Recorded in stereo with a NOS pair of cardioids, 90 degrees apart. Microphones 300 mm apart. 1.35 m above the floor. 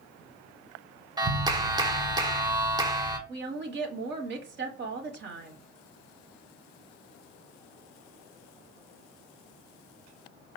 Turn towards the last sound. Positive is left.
turn(degrees=-40)